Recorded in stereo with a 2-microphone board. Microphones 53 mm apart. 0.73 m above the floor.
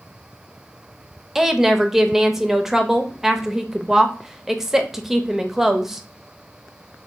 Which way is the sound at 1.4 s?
5° right (ahead or behind).